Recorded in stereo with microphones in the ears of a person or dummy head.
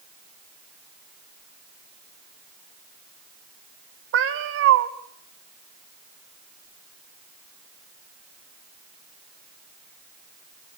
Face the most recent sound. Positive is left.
turn(degrees=-65)  # may be behind; listen again after turning